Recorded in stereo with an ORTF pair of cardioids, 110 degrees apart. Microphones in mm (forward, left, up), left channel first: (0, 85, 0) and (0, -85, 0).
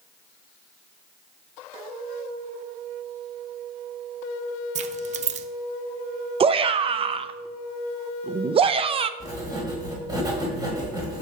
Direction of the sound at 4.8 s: 50° right.